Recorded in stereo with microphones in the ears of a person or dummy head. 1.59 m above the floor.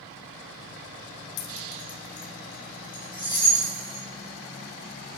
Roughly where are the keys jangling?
Left.